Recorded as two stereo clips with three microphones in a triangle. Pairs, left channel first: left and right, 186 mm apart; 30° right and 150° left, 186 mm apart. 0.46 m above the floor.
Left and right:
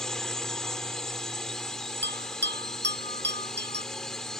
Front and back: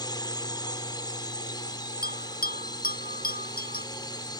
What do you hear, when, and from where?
0.0 s a drone: 5° left
2.0 s a bell: 70° right